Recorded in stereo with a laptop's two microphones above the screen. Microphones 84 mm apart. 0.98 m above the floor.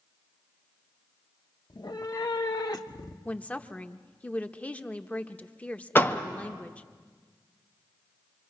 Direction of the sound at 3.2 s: 15° left (ahead or behind).